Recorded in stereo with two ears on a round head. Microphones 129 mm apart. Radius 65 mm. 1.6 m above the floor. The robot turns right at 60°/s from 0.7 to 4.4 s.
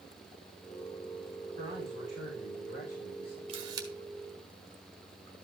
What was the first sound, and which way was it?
A man speaking, 35° right.